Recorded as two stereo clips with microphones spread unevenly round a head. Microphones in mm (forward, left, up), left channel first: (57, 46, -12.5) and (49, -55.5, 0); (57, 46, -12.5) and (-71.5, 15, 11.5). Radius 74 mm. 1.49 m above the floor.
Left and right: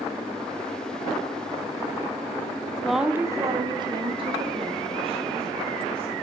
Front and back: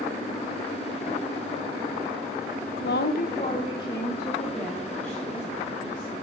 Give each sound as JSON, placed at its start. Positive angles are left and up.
{"t": 2.8, "sound": "a woman speaking", "azimuth_deg": 0, "distance_m": 0.8}